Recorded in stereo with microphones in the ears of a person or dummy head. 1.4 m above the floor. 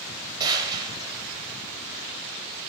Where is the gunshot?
20° right (ahead or behind), 0.9 m.